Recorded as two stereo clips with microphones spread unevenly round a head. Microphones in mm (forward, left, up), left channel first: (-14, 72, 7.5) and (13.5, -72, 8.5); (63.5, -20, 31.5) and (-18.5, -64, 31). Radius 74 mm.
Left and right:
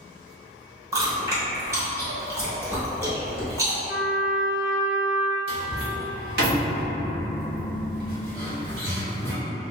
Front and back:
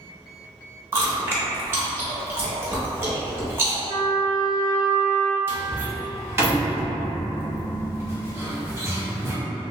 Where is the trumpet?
160° right, 0.5 m.